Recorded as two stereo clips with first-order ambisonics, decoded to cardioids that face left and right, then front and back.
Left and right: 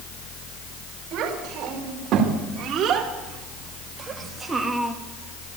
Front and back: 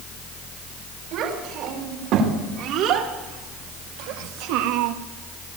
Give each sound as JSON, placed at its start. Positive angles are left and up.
{"t": 1.1, "sound": "a child speaking", "azimuth_deg": -135, "distance_m": 5.0}